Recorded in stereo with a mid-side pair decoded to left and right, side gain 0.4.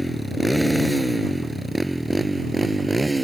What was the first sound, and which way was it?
A motorcycle, straight ahead.